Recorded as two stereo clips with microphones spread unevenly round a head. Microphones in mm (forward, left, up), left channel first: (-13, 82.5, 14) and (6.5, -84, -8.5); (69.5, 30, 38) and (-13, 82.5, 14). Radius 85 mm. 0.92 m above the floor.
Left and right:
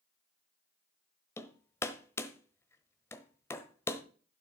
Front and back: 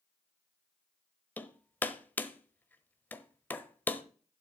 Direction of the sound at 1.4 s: 30° left.